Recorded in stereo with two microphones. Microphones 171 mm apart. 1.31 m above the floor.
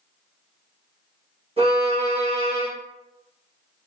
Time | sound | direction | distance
1.6 | a violin | 35° right (ahead or behind) | 0.9 m